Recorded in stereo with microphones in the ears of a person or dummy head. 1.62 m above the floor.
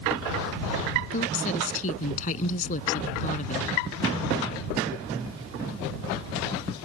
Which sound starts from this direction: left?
A woman speaking, at 1.1 s.